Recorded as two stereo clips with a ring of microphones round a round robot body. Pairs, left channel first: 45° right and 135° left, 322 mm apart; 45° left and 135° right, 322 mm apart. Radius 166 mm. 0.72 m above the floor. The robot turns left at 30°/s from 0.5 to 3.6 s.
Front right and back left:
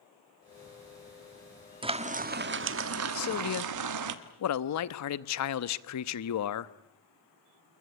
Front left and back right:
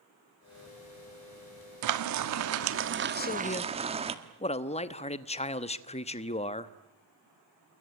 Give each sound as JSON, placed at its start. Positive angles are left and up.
{"t": 1.8, "sound": "frying", "azimuth_deg": -150, "distance_m": 1.6}
{"t": 3.1, "sound": "a man speaking", "azimuth_deg": -10, "distance_m": 1.1}